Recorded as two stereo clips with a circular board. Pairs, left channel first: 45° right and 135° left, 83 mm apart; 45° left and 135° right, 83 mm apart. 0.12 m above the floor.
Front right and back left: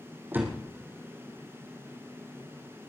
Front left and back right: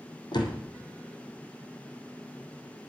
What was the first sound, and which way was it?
A door slam, 70° left.